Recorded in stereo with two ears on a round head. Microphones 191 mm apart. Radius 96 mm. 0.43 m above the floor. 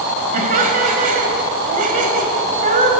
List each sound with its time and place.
0.3 s laughter: 35° right (ahead or behind), 2.5 m